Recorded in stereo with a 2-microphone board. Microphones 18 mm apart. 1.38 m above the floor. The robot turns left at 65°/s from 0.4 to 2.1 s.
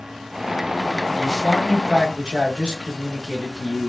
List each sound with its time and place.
1.1 s a man speaking: 35° right, 2.0 m; by 3.9 s 100° right, 2.0 m